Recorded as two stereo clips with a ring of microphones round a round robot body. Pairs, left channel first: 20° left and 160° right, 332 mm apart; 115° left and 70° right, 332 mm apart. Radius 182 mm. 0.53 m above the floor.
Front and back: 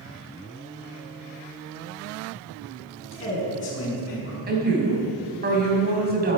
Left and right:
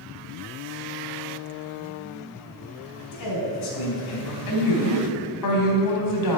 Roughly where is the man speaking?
Left.